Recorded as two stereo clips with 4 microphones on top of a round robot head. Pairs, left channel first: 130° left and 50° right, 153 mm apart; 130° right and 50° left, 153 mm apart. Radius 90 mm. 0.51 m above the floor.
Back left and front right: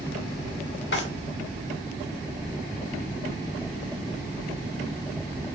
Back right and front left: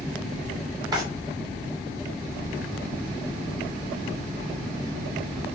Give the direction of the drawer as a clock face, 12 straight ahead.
8 o'clock.